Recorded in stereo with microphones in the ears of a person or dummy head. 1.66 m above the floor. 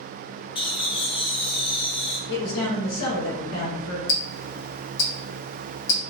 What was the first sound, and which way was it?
Laughter, 30° left (ahead or behind).